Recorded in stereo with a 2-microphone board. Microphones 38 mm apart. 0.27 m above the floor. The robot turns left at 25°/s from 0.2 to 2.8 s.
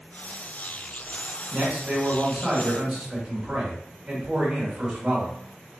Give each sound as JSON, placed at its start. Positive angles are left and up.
{"t": 1.5, "sound": "a man speaking", "azimuth_deg": -110, "distance_m": 1.8}